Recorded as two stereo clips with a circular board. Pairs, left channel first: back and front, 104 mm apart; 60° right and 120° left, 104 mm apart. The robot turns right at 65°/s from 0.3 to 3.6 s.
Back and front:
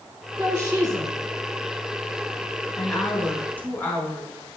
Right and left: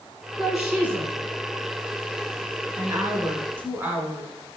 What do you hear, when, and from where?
0.4 s a woman speaking: 40° left, 1.4 m; by 1.1 s 90° left, 1.4 m
2.8 s a woman speaking: 90° left, 1.1 m; by 4.3 s 145° left, 1.1 m